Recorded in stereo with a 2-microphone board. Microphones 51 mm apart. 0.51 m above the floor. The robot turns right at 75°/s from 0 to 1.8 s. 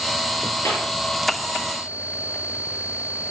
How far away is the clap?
About 7.5 m.